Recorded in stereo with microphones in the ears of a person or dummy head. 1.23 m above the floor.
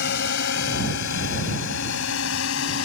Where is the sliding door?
I don't hear a sliding door.